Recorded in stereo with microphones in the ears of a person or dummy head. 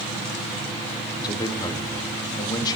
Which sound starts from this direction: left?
A man speaking, at 1.2 s.